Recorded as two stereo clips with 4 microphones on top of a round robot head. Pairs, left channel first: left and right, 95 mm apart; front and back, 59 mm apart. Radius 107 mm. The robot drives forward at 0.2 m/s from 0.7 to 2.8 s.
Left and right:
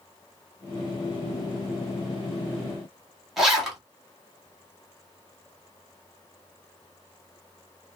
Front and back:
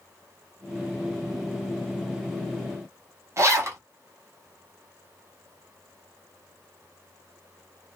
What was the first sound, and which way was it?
A zipper, 175° right.